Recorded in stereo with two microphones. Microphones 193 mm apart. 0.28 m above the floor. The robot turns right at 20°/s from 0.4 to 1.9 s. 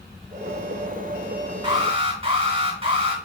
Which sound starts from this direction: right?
An alarm, at 1.6 s.